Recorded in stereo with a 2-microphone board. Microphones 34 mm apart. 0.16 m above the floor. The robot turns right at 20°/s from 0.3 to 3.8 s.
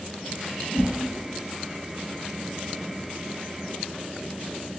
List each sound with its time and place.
0.7 s a whoosh: 45° left (ahead or behind), 1.8 m; by 1.0 s 50° left (ahead or behind), 1.8 m